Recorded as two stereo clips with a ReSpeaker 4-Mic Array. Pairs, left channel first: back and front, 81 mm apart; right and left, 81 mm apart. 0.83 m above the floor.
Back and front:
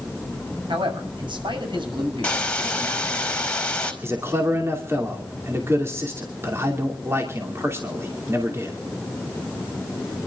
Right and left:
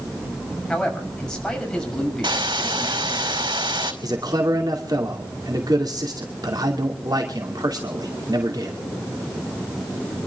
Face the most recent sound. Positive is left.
turn(degrees=55)